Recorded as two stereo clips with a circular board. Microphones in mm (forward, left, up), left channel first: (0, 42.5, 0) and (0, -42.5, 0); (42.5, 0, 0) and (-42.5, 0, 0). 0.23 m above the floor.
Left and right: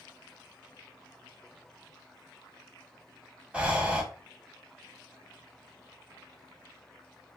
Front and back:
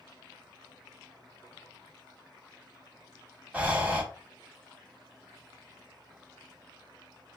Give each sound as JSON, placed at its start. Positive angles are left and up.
{"t": 3.5, "sound": "breathing", "azimuth_deg": -140, "distance_m": 0.7}